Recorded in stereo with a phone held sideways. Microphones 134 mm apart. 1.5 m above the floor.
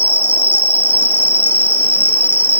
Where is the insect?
45° right (ahead or behind).